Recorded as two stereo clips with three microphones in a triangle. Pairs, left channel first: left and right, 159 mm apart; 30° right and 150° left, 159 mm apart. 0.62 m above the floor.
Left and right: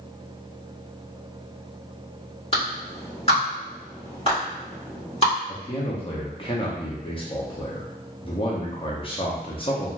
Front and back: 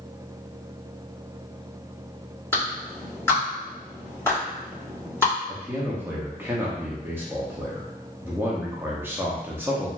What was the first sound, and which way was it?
A clap, 40° left.